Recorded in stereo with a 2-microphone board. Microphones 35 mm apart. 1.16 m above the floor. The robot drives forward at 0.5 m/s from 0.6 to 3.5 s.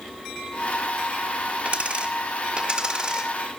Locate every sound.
1.6 s a dropped coin: 35° right (ahead or behind), 1.2 m; by 3.3 s 20° right (ahead or behind), 1.9 m